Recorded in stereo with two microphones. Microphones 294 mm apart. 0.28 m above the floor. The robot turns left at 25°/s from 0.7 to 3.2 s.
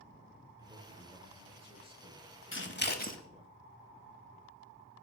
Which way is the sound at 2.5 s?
40° left (ahead or behind).